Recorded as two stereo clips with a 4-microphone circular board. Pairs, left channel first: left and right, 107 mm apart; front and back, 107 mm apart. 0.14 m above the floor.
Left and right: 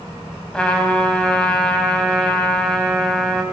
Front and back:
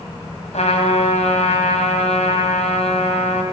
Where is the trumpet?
10° left, 9 m.